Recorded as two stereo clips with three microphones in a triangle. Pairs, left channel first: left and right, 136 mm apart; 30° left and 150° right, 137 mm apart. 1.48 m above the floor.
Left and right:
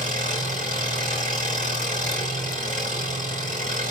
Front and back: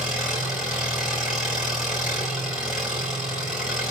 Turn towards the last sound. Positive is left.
turn(degrees=-65)